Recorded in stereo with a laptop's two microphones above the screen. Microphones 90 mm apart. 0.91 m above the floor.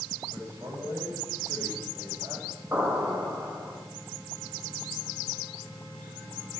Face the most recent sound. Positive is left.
turn(degrees=-20)  # may be behind; listen again after turning